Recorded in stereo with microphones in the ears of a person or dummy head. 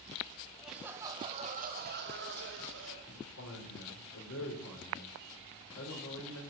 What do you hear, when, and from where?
0.6 s laughter: 5° left (ahead or behind), 1.3 m; by 3.0 s 70° right (ahead or behind), 2 m
3.1 s a man speaking: 85° left, 4.5 m